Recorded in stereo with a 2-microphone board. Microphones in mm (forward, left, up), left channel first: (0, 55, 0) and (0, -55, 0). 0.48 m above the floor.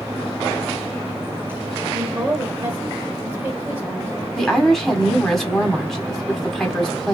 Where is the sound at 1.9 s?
20° right (ahead or behind), 1.4 m.